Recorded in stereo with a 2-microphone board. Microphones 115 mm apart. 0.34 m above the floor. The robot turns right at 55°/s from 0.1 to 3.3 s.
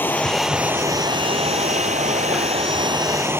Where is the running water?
165° left; by 3.4 s 20° right.